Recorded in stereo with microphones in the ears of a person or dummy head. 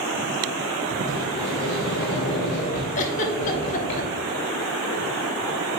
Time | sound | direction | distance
1.0 | a sliding door | 55° left (ahead or behind) | 2 m
3.0 | a giggle | 45° left (ahead or behind) | 1.0 m